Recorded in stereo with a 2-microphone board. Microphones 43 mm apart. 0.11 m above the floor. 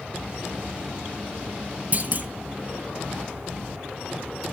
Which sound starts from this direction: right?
A clunk, at 1.9 s.